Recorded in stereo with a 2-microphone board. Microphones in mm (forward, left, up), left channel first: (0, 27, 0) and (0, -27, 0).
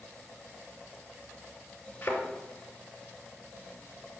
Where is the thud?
30° left (ahead or behind), 2.5 m.